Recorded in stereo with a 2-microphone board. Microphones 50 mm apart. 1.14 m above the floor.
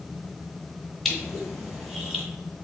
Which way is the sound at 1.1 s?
5° left (ahead or behind).